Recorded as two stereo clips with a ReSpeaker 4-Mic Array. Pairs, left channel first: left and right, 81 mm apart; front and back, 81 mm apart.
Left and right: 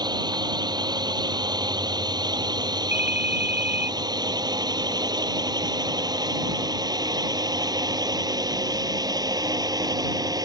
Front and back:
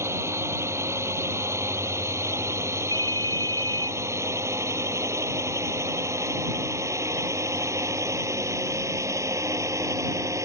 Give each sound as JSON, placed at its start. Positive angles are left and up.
{"t": 0.0, "sound": "a drone", "azimuth_deg": -125}
{"t": 2.9, "sound": "a ringtone", "azimuth_deg": -155}